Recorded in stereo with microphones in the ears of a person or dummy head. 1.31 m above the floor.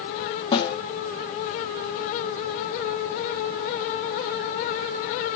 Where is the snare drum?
25° left (ahead or behind), 1.4 m.